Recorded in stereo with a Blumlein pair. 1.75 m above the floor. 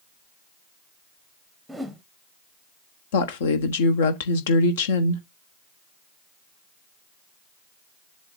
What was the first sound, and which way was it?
A whoosh, 5° right.